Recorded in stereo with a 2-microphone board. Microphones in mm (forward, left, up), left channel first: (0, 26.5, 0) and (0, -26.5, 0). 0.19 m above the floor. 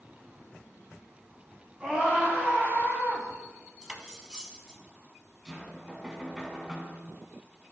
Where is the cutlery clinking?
15° right (ahead or behind), 0.7 m.